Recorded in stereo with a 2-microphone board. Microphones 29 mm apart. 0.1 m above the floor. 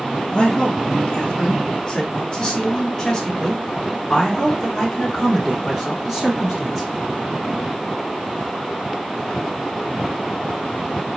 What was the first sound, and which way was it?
A man speaking, 35° left (ahead or behind).